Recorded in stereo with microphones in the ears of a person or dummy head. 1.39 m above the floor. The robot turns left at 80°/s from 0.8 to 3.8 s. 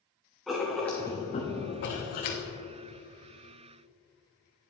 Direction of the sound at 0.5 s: 175° left.